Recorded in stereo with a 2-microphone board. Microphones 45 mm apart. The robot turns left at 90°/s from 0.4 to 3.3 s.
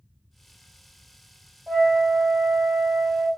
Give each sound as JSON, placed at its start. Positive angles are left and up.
{"t": 1.7, "sound": "a flute", "azimuth_deg": 150, "distance_m": 1.6}